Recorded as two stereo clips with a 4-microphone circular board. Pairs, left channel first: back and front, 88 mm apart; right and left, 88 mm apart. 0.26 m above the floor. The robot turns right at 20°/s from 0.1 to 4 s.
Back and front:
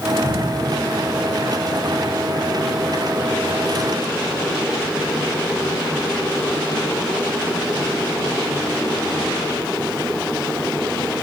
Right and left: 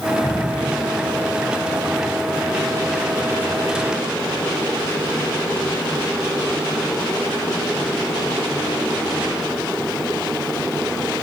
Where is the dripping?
160° right, 3.5 m; by 0.7 s 150° right, 3.5 m.